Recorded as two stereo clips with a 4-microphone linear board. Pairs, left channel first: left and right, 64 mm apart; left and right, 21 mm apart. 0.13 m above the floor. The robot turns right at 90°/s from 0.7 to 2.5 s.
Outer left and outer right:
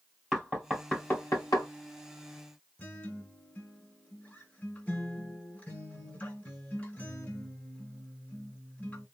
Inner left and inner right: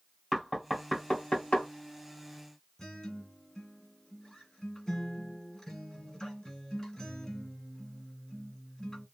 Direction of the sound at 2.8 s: 25° left (ahead or behind).